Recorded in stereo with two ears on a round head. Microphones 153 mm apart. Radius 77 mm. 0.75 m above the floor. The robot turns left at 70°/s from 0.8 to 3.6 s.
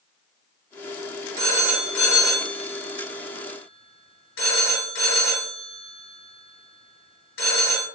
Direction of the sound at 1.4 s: 35° right (ahead or behind).